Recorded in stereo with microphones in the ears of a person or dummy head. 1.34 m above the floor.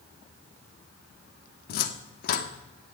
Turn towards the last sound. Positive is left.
turn(degrees=55)  # may be behind; listen again after turning